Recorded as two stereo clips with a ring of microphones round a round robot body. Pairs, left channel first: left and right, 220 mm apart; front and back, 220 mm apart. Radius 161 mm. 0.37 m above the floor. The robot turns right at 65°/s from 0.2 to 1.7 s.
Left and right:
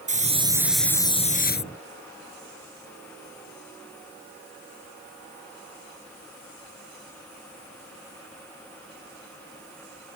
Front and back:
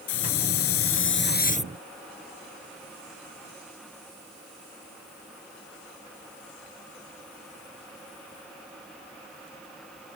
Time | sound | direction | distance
0.1 | a hiss | 35° right | ?